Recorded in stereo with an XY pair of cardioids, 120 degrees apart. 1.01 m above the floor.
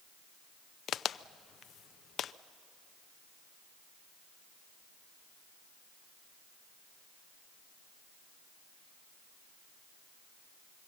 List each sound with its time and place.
0.9 s a crack: 50° left, 0.5 m